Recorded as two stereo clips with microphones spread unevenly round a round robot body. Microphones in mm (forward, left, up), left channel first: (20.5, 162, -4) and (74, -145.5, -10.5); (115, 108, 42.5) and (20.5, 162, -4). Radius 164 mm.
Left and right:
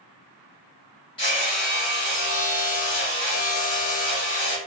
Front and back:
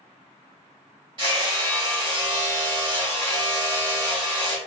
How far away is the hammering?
About 1.9 m.